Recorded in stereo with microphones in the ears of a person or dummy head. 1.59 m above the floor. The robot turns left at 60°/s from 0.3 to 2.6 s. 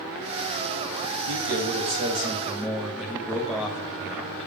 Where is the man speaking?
100° right, 3 m; by 4.5 s straight behind, 3 m.